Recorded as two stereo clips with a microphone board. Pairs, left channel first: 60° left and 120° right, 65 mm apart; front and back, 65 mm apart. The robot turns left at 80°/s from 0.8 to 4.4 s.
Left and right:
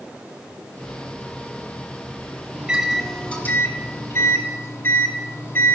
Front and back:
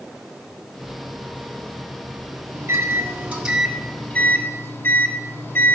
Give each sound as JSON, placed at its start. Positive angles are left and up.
{"t": 2.5, "sound": "a microwave", "azimuth_deg": 180, "distance_m": 1.5}